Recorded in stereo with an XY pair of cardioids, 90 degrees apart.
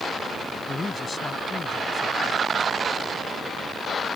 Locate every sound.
0.7 s a man speaking: 30° left